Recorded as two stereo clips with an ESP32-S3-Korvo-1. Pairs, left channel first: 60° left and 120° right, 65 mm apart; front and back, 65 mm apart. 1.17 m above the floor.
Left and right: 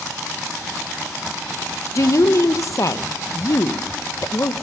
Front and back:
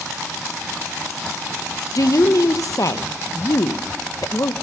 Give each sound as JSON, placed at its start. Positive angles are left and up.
{"t": 1.9, "sound": "a woman speaking", "azimuth_deg": 25, "distance_m": 1.0}